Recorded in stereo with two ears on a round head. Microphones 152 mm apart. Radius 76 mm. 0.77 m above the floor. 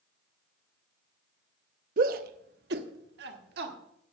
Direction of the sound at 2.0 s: 50° right (ahead or behind).